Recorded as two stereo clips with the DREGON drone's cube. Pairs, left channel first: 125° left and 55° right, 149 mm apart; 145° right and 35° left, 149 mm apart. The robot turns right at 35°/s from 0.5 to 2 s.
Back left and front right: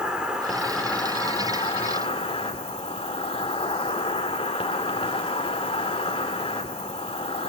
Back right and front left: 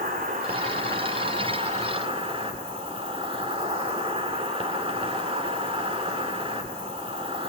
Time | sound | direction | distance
0.0 | an insect | 30° left | 2.5 m